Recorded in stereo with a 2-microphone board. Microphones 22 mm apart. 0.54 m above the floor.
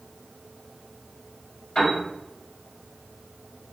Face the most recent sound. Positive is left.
turn(degrees=30)  # may be behind; listen again after turning